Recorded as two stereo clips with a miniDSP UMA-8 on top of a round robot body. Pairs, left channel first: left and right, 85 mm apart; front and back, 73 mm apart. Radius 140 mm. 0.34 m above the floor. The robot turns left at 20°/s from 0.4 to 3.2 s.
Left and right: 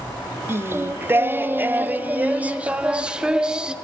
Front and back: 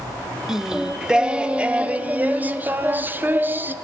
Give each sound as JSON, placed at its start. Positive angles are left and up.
{"t": 0.5, "sound": "singing", "azimuth_deg": -105, "distance_m": 0.6}